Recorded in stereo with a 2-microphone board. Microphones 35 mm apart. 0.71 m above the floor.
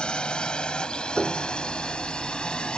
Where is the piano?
10° right (ahead or behind).